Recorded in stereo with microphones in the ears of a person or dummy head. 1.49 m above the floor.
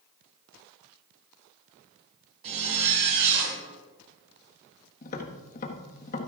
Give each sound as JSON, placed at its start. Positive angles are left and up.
{"t": 2.4, "sound": "a zipper", "side_deg": -30, "distance_m": 7.0}
{"t": 5.0, "sound": "tapping", "side_deg": 45, "distance_m": 1.4}